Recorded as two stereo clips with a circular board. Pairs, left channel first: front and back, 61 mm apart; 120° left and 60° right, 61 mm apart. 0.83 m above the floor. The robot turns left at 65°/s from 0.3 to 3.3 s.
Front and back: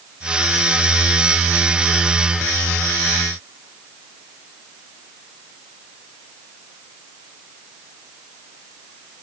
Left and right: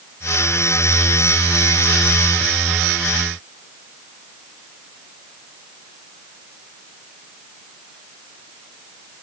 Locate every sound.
Only background noise.